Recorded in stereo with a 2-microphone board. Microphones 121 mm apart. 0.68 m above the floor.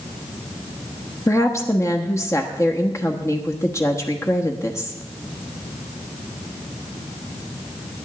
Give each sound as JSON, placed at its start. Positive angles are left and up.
{"t": 1.3, "sound": "a woman speaking", "side_deg": 25, "distance_m": 1.1}